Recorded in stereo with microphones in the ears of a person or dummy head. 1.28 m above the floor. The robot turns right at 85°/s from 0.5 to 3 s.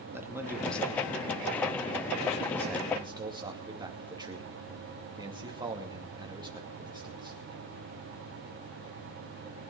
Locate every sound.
0.1 s a man speaking: 15° right (ahead or behind), 2.5 m; by 7.4 s 20° right (ahead or behind), 2.5 m